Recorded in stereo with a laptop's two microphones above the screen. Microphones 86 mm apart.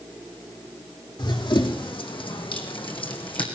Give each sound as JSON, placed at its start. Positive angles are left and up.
{"t": 1.2, "sound": "running footsteps", "side_deg": 60, "distance_m": 3.5}